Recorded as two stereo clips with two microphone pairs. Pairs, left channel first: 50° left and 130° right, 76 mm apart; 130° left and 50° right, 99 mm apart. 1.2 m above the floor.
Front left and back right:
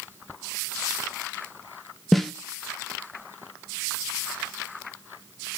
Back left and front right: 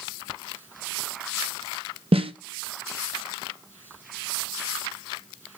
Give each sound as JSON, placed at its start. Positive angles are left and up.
{"t": 2.1, "sound": "a snare drum", "azimuth_deg": -40, "distance_m": 0.7}